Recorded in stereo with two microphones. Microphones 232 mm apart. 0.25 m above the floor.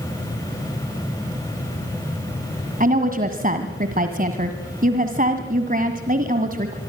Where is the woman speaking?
40° right (ahead or behind), 1.8 m.